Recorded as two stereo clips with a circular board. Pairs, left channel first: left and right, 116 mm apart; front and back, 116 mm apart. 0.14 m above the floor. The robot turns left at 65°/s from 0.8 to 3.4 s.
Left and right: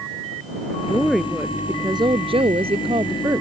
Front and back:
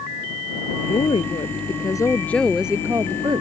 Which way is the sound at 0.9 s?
20° left.